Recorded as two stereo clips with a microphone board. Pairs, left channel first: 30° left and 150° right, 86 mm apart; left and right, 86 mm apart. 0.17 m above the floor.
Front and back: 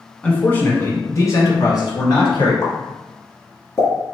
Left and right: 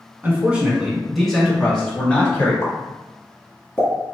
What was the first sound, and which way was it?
A man speaking, 35° right.